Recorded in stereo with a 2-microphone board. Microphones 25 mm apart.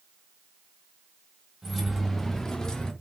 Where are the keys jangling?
Centre (ahead or behind), 1.0 m; by 2.9 s 25° left (ahead or behind), 0.8 m.